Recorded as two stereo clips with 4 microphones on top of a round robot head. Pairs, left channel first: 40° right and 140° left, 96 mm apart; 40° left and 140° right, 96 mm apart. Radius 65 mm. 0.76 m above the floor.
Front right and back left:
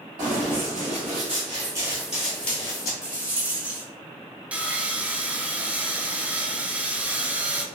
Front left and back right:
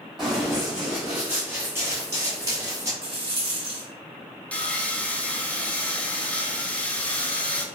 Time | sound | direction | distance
0.2 | running footsteps | 135° left | 1.4 m
3.0 | a rattle | 145° right | 1.7 m
4.5 | sawing | 85° left | 0.6 m